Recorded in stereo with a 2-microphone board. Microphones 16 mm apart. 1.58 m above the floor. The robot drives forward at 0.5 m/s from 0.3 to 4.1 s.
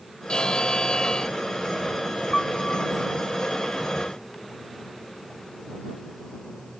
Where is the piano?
35° left (ahead or behind).